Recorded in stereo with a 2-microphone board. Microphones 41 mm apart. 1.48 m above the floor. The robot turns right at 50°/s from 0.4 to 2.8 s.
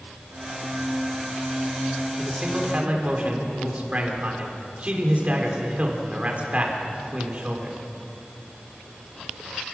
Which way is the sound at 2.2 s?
175° right.